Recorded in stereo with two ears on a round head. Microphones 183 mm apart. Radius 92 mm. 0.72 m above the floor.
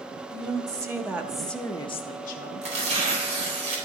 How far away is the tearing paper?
About 3.5 m.